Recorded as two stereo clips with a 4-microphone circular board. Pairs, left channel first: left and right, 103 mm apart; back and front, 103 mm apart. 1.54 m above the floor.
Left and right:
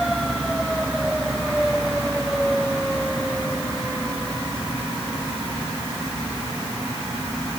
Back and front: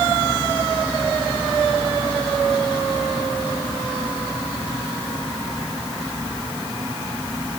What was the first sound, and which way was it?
Only background noise.